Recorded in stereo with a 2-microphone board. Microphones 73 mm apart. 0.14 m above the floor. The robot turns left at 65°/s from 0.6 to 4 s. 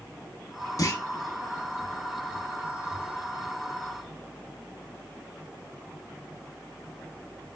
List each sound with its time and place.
0.8 s a clunk: 55° left (ahead or behind), 0.7 m; by 1.0 s 40° left (ahead or behind), 0.7 m